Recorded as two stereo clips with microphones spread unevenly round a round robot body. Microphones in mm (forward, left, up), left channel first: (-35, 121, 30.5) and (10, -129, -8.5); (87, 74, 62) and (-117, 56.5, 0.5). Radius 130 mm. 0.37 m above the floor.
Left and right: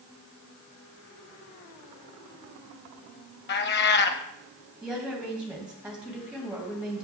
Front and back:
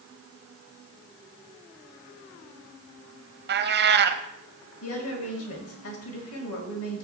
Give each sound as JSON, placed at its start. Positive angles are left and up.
{"t": 3.5, "sound": "a cat meowing", "azimuth_deg": 155, "distance_m": 0.7}
{"t": 4.8, "sound": "a woman speaking", "azimuth_deg": 0, "distance_m": 2.0}